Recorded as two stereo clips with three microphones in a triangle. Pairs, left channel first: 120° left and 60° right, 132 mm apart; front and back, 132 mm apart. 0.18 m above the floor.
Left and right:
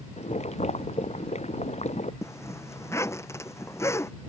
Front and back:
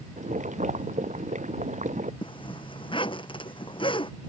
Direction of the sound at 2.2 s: 50° left.